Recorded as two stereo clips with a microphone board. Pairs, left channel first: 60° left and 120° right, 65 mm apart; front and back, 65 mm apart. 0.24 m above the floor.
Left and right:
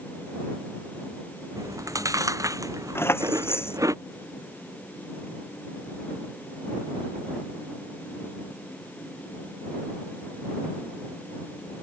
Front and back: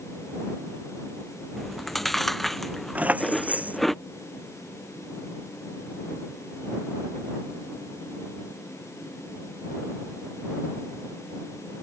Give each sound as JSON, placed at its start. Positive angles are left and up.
{"t": 1.6, "sound": "chewing", "azimuth_deg": -90}
{"t": 3.0, "sound": "keys jangling", "azimuth_deg": 110}